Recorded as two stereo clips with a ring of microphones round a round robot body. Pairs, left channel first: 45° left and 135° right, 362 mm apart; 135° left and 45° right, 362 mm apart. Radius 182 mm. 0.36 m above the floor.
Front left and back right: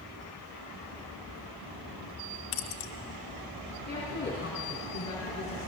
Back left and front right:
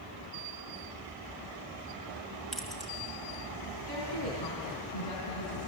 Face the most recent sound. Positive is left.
turn(degrees=110)